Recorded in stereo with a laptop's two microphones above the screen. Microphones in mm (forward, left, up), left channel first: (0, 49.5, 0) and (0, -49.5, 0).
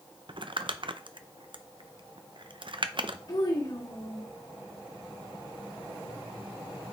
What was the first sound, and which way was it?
Crumpling, 55° right (ahead or behind).